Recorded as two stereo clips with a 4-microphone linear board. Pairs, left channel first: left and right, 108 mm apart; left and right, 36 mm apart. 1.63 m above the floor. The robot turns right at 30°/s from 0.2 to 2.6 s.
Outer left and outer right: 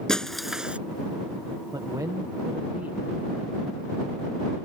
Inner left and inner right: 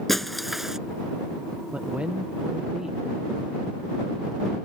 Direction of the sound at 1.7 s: 45° right (ahead or behind).